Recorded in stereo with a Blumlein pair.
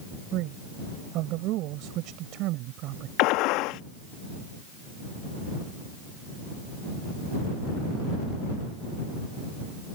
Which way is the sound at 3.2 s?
40° left.